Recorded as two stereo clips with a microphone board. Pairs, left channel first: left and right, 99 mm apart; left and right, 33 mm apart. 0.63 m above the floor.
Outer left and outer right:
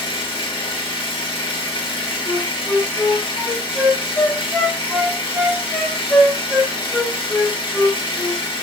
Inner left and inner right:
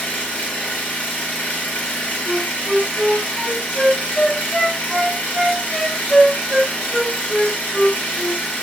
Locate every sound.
0.0 s an engine running: 65° left (ahead or behind), 0.8 m
2.3 s a flute: 5° left (ahead or behind), 0.6 m